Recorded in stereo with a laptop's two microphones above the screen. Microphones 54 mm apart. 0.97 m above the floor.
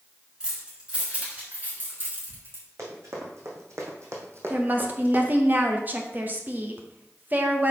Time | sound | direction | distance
0.4 | keys jangling | 15° right (ahead or behind) | 2.5 m
2.8 | running footsteps | 60° right (ahead or behind) | 3 m
4.5 | a woman speaking | 35° right (ahead or behind) | 0.9 m